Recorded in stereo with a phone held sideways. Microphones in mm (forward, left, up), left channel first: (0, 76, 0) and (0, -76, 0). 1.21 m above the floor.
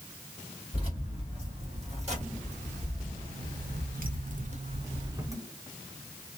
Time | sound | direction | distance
0.7 | keys jangling | 40° right (ahead or behind) | 1.9 m